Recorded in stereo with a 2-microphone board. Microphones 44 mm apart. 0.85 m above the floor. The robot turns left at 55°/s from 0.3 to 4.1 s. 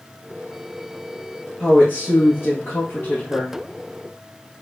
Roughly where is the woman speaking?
Behind left.